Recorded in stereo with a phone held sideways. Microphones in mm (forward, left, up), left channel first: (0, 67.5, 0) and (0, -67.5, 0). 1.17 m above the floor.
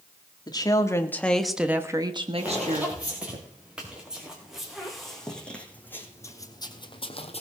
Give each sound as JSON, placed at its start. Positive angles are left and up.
{"t": 0.5, "sound": "a woman speaking", "side_deg": 30, "distance_m": 2.0}
{"t": 2.4, "sound": "footsteps", "side_deg": -10, "distance_m": 6.0}